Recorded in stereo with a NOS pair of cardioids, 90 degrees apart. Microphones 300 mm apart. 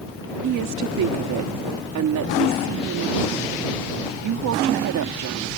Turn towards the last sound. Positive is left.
turn(degrees=-70)